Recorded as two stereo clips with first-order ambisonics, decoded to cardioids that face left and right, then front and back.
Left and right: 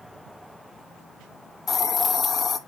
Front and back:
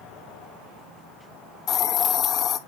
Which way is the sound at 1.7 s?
35° left.